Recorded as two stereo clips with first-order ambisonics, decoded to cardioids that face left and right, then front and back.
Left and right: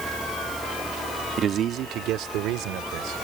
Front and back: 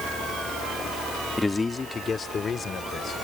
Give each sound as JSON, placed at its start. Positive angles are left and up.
{"t": 1.4, "sound": "a man speaking", "azimuth_deg": -70}